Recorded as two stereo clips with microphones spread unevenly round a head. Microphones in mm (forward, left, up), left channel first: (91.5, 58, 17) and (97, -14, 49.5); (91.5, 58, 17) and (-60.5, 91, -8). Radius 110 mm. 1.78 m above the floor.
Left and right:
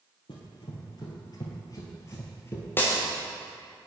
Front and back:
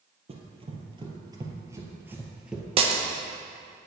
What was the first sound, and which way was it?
Running footsteps, 135° left.